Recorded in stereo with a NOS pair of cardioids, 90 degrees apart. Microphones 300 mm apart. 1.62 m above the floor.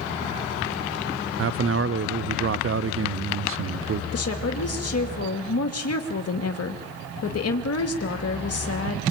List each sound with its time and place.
1.4 s a man speaking: 45° right, 0.6 m
4.1 s a woman speaking: 50° left, 2.5 m